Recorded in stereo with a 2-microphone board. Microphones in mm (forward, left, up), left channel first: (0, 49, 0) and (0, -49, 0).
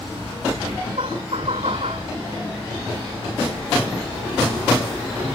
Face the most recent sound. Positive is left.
turn(degrees=-75)  # may be behind; listen again after turning